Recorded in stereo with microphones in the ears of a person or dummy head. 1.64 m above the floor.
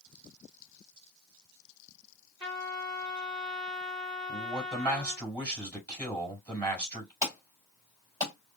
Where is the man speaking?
10° right (ahead or behind), 4 m.